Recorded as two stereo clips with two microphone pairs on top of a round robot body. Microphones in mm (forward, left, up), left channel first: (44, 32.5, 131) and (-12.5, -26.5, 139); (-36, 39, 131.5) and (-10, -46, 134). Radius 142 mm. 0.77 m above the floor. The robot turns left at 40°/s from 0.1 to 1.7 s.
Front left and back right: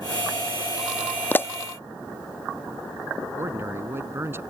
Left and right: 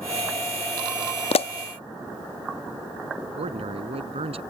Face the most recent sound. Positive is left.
turn(degrees=-70)